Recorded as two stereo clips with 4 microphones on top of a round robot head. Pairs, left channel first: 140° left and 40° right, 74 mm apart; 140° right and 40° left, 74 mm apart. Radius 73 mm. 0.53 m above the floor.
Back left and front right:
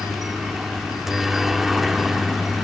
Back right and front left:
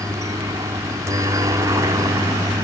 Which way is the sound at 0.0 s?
45° left.